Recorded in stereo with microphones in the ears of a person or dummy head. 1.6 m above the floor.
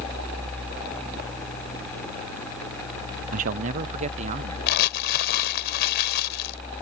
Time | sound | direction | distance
3.3 | a man speaking | 45° right (ahead or behind) | ?
4.7 | crumpling | 65° left (ahead or behind) | ?